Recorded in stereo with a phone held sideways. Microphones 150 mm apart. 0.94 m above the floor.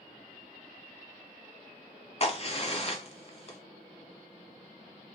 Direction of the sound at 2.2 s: 45° left (ahead or behind).